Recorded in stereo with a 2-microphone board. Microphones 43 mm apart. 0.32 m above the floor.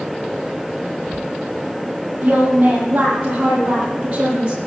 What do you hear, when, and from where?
2.2 s a woman speaking: 35° right (ahead or behind), 9 m; by 4.6 s 30° right (ahead or behind), 8 m